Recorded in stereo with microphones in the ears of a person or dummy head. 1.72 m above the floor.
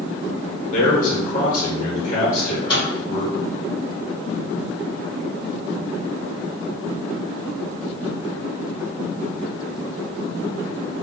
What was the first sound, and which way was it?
A man speaking, 50° left (ahead or behind).